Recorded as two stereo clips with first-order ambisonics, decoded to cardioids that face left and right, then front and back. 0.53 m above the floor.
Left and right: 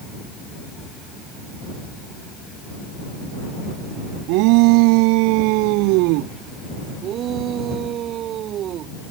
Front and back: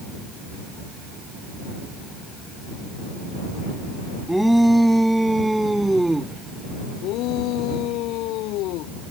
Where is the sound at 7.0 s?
35° right.